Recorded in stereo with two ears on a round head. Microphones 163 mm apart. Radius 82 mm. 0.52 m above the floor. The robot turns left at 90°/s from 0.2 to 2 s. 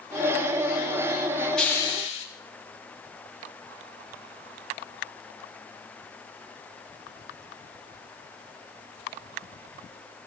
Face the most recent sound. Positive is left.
turn(degrees=135)